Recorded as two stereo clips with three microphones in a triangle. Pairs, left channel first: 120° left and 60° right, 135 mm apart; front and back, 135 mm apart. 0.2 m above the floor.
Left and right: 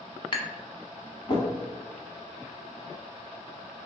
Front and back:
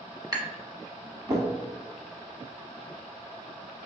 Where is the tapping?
145° left, 0.8 m.